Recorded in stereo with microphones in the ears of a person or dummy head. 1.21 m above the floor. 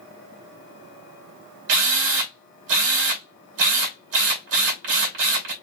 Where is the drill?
70° right (ahead or behind), 2 m.